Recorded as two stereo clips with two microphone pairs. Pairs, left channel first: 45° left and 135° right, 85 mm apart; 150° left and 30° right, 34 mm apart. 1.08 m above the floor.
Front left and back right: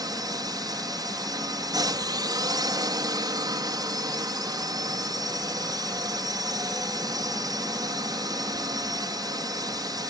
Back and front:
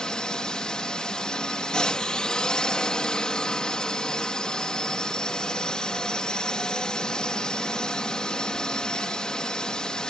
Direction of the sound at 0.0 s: 150° right.